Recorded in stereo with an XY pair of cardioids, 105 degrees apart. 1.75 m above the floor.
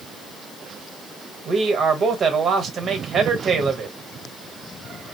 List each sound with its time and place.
1.4 s a man speaking: 50° right, 1.2 m